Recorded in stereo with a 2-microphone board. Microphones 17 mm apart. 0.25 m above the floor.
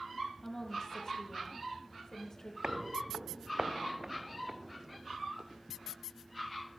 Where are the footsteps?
55° right (ahead or behind), 0.7 m; by 6.0 s 20° right (ahead or behind), 3 m.